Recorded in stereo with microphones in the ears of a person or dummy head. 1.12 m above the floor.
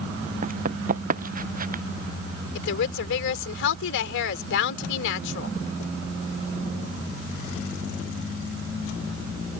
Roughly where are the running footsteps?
Right.